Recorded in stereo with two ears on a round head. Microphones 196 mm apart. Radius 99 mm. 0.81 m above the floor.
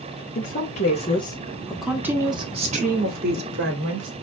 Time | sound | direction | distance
0.3 | a woman speaking | 40° left (ahead or behind) | 1.9 m